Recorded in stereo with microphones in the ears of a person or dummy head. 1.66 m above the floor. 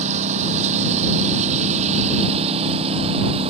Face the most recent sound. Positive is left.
turn(degrees=-30)  # may be behind; listen again after turning